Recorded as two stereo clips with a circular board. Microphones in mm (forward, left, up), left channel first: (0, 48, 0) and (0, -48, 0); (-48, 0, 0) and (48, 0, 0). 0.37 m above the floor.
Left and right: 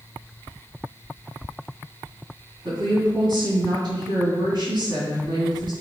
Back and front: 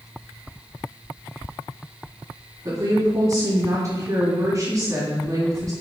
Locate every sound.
2.6 s a woman speaking: 55° right, 3 m